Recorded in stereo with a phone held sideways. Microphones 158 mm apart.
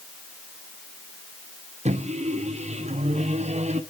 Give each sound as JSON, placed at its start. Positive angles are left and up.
{"t": 1.9, "sound": "a microwave", "side_deg": -45, "distance_m": 1.1}